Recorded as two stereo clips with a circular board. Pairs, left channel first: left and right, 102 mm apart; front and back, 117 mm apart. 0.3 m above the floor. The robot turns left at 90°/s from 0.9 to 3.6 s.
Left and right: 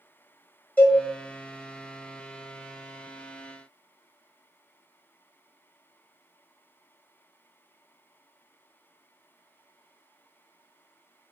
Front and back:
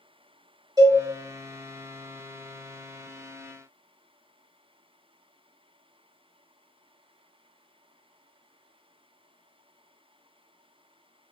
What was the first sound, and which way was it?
A cowbell, 155° left.